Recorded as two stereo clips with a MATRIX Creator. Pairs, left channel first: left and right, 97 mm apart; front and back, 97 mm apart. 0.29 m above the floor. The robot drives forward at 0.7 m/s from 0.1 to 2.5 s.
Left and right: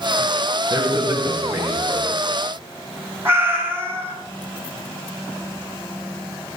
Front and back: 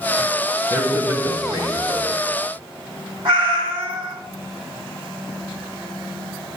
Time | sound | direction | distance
0.7 | a man speaking | 125° right | 1.1 m
3.2 | a cat meowing | 155° right | 1.5 m